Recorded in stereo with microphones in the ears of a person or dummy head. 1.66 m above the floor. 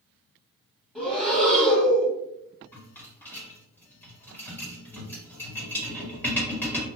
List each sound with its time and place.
0.9 s breathing: centre (ahead or behind), 1.4 m
2.7 s a rattle: 10° left (ahead or behind), 1.3 m